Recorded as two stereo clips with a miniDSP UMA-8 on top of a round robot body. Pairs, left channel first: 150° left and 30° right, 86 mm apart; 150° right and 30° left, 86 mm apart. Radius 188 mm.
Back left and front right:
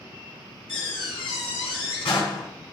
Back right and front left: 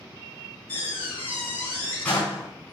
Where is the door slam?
140° left, 4.5 m.